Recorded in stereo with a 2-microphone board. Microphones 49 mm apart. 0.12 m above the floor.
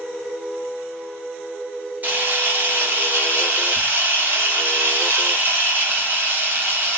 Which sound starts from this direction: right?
A camera shutter, at 2.0 s.